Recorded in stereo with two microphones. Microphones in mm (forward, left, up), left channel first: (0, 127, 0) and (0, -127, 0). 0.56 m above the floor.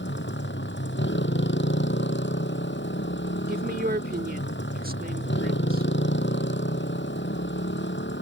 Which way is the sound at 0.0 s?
45° left (ahead or behind).